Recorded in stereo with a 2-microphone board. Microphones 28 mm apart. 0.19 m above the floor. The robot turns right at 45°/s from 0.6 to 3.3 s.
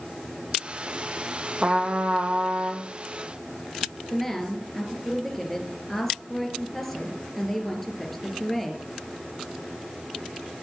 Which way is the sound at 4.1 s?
5° left (ahead or behind).